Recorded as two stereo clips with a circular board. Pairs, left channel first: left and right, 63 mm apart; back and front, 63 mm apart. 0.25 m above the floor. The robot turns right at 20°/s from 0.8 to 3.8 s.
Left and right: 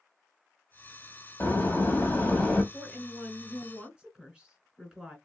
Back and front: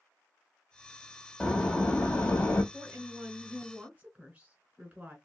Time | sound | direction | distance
1.4 | a door slam | 130° left | 0.9 m
2.7 | a woman speaking | 55° right | 1.5 m